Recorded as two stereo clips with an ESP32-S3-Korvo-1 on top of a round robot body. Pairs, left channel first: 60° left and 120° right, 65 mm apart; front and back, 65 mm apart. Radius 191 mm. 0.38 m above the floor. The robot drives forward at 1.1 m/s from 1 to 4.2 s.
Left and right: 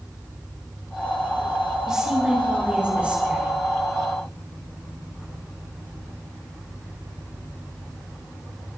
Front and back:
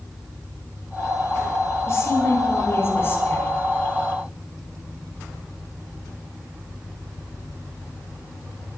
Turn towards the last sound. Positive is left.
turn(degrees=-60)